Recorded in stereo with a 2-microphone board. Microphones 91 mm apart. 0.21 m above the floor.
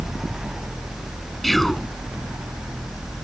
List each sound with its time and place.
1.4 s whispering: centre (ahead or behind)